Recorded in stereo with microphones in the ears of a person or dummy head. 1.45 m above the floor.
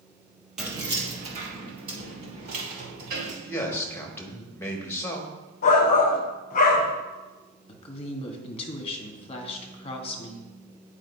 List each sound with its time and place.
0.6 s keys jangling: 5° right (ahead or behind), 0.8 m; by 3.3 s 50° right (ahead or behind), 4 m
3.4 s a man speaking: 15° left (ahead or behind), 1.4 m
5.6 s a shout: 40° left (ahead or behind), 0.7 m
7.7 s a woman speaking: 35° left (ahead or behind), 1.2 m